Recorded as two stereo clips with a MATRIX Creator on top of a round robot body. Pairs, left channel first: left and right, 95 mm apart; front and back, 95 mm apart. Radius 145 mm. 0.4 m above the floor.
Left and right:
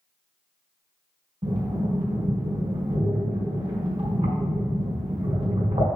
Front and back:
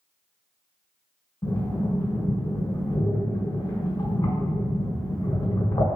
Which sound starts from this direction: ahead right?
Breathing, at 1.4 s.